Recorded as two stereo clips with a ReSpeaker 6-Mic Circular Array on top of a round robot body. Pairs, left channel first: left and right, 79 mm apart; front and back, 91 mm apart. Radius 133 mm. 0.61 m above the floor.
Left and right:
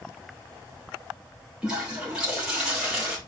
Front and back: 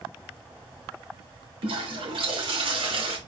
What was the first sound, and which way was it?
A toilet flushing, 170° right.